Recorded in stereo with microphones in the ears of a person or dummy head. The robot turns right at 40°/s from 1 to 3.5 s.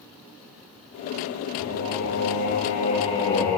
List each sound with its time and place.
1.6 s singing: 95° left, 1.6 m; by 3.6 s 170° left, 1.6 m